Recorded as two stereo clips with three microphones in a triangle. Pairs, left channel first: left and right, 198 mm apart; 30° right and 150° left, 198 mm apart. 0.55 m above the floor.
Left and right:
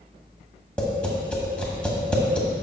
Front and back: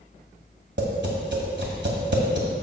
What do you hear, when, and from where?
0.8 s tapping: 175° left, 1.5 m